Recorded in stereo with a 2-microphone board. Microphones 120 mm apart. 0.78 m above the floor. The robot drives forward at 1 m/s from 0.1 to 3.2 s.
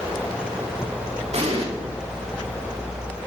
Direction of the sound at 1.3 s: 65° right (ahead or behind).